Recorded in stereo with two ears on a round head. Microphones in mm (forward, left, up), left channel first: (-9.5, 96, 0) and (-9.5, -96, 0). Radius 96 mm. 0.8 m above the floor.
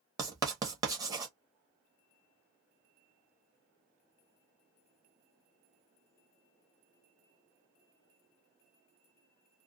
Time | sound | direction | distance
0.2 | writing | 15° right (ahead or behind) | 0.8 m